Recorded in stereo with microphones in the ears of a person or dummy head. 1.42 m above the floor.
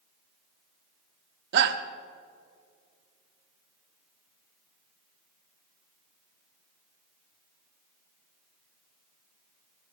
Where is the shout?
65° right (ahead or behind), 1.0 m.